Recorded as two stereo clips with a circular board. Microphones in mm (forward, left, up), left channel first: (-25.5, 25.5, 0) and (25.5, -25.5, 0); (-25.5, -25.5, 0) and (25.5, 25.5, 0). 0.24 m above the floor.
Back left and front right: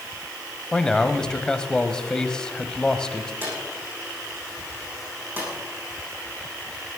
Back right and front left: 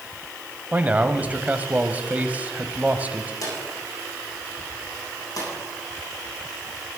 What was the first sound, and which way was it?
A man speaking, 70° left.